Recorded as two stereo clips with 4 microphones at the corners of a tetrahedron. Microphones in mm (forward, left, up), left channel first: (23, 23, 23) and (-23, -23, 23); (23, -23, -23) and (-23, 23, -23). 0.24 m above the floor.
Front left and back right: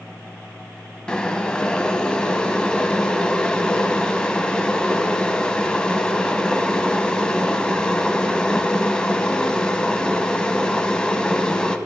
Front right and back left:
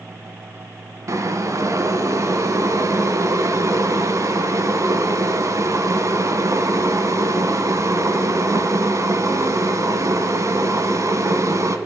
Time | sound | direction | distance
1.1 | boiling | 120° left | 0.8 m